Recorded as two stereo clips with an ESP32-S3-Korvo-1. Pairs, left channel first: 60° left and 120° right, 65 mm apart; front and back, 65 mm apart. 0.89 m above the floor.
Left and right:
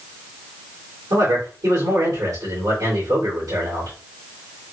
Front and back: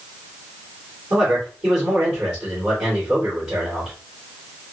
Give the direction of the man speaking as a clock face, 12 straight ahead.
4 o'clock.